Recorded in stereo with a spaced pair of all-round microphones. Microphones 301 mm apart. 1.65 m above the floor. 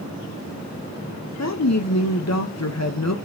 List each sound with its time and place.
1.4 s a woman speaking: 60° left (ahead or behind), 1.0 m